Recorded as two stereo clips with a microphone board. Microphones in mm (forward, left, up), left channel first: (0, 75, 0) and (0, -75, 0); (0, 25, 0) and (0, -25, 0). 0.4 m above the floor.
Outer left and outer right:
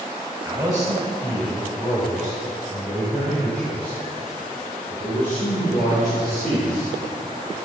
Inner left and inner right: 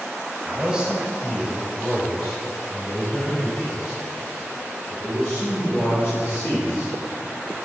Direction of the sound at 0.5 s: 20° right (ahead or behind).